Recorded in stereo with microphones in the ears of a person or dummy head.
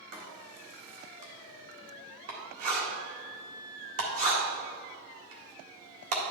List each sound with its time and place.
0.1 s writing: 55° right (ahead or behind), 1.7 m